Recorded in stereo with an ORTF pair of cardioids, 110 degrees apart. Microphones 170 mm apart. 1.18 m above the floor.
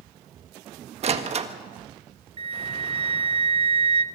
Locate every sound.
1.0 s a door slam: 40° right, 1.4 m
2.4 s a flute: 35° right, 0.8 m